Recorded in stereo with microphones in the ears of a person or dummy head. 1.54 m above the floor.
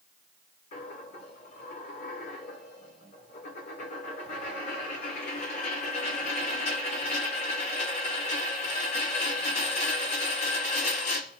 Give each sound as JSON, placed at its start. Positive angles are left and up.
{"t": 0.7, "sound": "a dropped coin", "side_deg": 40, "distance_m": 1.8}